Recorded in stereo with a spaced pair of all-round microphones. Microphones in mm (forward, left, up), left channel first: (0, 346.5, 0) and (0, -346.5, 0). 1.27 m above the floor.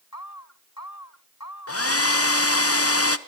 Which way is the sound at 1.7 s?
20° left (ahead or behind).